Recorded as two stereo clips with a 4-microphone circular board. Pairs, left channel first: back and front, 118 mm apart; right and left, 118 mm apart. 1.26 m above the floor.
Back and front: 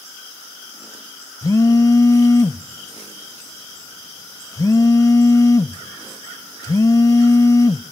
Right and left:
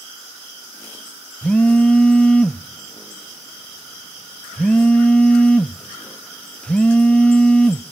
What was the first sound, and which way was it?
A phone buzzing, 160° right.